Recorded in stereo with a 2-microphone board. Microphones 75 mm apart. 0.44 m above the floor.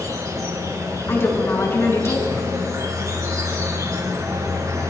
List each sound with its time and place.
0.0 s an insect: 50° right (ahead or behind), 5.5 m
1.1 s a woman speaking: 35° left (ahead or behind), 4.5 m